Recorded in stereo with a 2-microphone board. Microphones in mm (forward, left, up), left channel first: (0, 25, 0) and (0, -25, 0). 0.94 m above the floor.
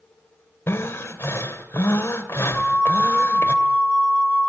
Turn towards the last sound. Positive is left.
turn(degrees=-20)  # may be behind; listen again after turning